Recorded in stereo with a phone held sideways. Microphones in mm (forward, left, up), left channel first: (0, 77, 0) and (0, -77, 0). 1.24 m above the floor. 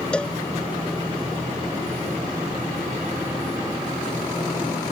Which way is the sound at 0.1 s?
5° left (ahead or behind).